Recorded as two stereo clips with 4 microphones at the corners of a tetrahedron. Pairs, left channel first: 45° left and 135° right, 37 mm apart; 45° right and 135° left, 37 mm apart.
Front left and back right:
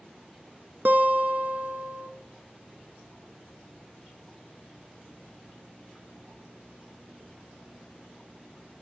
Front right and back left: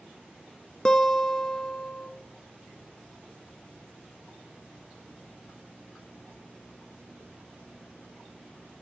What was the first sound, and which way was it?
A guitar, 115° right.